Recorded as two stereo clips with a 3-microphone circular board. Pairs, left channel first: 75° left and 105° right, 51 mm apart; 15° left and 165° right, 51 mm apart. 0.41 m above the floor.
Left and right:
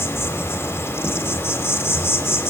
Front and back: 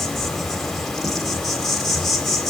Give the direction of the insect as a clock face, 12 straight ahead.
9 o'clock.